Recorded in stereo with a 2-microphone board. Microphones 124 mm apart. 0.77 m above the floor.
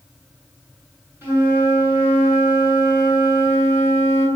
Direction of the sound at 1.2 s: 20° right (ahead or behind).